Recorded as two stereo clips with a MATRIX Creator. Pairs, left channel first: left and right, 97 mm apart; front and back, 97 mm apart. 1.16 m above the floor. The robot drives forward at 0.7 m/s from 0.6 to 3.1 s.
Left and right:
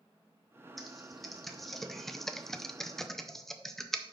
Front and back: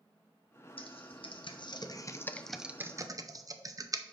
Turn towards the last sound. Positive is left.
turn(degrees=175)